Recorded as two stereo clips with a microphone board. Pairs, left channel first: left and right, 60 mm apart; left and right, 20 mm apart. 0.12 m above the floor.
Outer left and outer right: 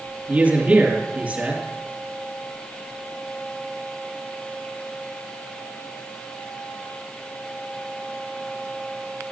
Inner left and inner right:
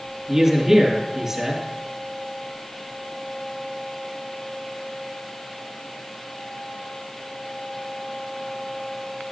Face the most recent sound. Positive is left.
turn(degrees=-20)  # may be behind; listen again after turning